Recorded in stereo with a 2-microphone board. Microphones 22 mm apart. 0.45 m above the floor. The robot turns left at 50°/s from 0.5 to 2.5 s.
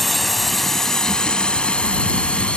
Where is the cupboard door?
I don't hear a cupboard door.